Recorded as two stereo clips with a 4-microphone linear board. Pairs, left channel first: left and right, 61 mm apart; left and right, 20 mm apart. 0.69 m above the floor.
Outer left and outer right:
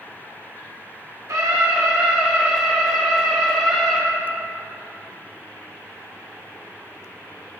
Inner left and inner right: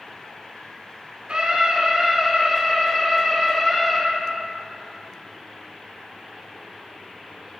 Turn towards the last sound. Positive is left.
turn(degrees=15)  # may be behind; listen again after turning